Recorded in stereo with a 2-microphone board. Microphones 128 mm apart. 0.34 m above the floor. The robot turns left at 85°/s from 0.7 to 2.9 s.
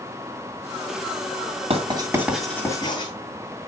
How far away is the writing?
About 2.5 m.